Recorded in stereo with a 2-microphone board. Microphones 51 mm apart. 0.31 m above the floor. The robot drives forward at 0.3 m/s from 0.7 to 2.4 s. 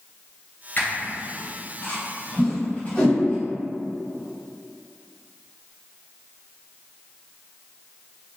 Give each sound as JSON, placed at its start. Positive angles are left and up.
{"t": 0.8, "sound": "a squeak", "side_deg": 45, "distance_m": 0.8}
{"t": 2.4, "sound": "a whoosh", "side_deg": 20, "distance_m": 1.5}